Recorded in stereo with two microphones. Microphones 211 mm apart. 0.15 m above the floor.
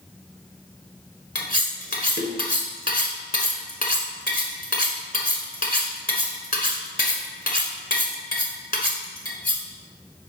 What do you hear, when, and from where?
1.4 s cutlery clinking: 45° left (ahead or behind), 1.2 m